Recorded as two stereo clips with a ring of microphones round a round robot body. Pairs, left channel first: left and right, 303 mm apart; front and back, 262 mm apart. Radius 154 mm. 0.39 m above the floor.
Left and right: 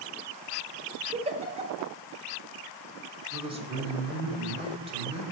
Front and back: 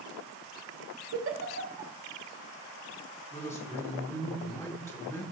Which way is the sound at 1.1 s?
155° right.